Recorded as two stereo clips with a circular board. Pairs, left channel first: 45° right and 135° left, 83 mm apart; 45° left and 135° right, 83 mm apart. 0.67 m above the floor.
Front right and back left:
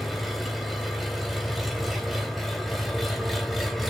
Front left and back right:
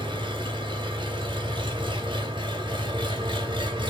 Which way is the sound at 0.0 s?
135° right.